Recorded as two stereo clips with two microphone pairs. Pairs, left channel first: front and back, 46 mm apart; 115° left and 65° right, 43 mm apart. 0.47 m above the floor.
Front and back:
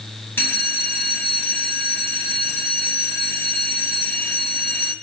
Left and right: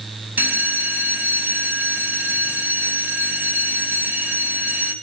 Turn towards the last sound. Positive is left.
turn(degrees=-30)